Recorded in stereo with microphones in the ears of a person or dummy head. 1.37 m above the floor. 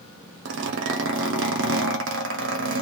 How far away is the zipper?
About 0.6 m.